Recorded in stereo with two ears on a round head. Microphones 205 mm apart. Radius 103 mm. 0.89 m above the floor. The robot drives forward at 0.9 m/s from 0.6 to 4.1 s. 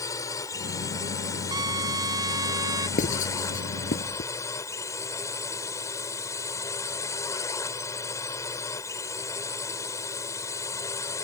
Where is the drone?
15° left (ahead or behind).